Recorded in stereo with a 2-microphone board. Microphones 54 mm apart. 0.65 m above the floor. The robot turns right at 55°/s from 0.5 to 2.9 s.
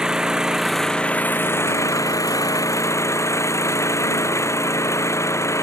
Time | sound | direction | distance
0.0 | an engine running | 10° right | ?